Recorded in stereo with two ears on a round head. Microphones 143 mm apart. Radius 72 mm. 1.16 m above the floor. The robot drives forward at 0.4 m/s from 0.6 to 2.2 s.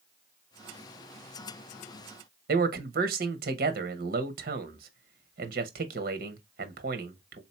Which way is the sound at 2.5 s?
60° right (ahead or behind).